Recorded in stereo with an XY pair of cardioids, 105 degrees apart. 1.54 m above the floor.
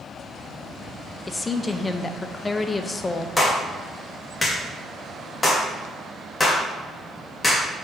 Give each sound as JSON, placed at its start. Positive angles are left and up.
{"t": 1.3, "sound": "a woman speaking", "azimuth_deg": 25, "distance_m": 0.8}
{"t": 3.4, "sound": "a clap", "azimuth_deg": 25, "distance_m": 2.0}